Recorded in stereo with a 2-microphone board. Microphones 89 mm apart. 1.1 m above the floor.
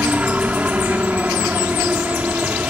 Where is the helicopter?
15° right (ahead or behind).